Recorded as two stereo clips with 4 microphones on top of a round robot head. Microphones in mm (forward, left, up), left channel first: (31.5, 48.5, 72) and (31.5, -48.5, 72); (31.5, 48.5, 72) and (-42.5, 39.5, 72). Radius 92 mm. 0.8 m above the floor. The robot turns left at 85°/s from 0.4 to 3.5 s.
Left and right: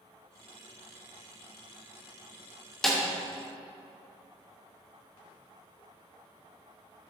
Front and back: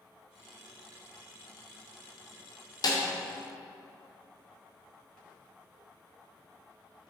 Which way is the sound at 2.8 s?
5° left.